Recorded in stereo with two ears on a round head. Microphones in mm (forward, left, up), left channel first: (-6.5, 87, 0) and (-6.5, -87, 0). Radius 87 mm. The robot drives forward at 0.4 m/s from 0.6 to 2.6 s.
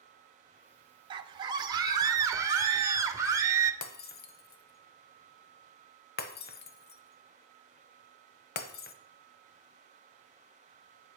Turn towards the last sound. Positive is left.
turn(degrees=55)  # may be behind; listen again after turning